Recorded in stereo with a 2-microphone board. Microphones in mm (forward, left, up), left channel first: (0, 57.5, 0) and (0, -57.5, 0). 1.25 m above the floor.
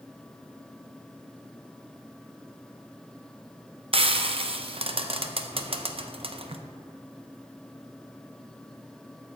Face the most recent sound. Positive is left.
turn(degrees=-55)  # may be behind; listen again after turning